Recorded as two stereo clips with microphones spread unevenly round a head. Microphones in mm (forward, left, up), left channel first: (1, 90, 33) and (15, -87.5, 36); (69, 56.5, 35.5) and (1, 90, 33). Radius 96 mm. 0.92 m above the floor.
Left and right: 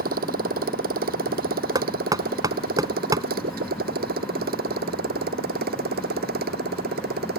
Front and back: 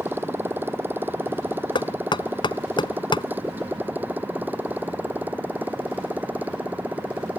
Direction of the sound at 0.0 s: 130° right.